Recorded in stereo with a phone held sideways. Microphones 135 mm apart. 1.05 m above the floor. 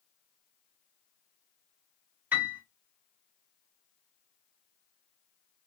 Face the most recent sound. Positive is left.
turn(degrees=-15)  # may be behind; listen again after turning